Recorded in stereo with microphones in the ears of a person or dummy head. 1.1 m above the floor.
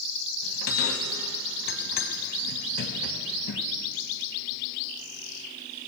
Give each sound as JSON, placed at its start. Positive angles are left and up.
{"t": 0.4, "sound": "a bell", "side_deg": 55, "distance_m": 0.9}